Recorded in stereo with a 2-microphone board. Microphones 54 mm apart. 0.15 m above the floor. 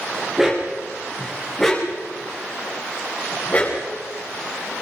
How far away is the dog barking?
About 6 m.